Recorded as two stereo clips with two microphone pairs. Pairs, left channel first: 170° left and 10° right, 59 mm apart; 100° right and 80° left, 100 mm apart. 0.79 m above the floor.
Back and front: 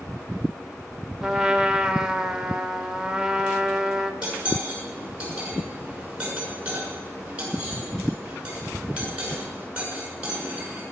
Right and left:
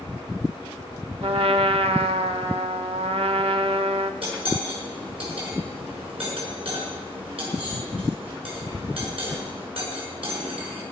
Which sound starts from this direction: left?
A trumpet, at 1.2 s.